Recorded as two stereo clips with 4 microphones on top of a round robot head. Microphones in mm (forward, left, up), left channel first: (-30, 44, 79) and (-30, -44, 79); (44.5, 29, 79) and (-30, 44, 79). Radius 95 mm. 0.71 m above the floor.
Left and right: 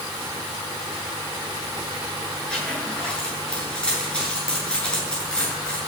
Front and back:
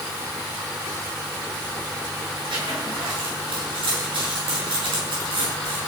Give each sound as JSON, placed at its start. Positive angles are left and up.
{"t": 2.5, "sound": "a zipper", "azimuth_deg": 170, "distance_m": 8.5}